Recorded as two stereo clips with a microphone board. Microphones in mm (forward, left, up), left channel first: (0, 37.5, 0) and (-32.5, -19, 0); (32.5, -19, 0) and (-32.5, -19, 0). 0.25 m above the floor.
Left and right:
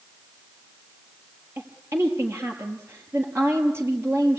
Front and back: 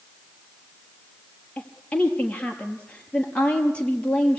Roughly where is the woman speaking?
Right.